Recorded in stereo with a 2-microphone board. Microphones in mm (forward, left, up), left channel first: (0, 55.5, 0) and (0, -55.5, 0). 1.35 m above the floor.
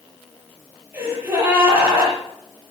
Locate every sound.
0.9 s a gasp: 20° right (ahead or behind), 7.5 m